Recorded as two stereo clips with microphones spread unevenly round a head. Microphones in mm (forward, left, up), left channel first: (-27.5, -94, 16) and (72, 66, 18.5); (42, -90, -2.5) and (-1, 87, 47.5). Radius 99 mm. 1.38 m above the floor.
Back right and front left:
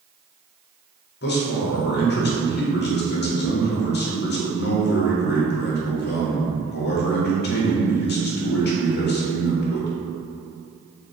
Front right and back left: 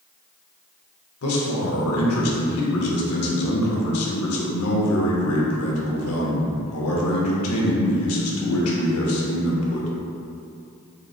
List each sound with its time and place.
1.2 s a man speaking: 90° right, 0.8 m